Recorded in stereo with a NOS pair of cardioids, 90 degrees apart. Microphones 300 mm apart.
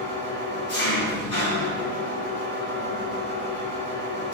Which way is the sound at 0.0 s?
65° left.